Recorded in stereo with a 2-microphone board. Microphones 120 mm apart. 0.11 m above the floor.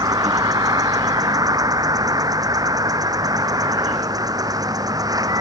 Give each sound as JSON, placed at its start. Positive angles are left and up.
{"t": 0.0, "sound": "an insect", "side_deg": -30}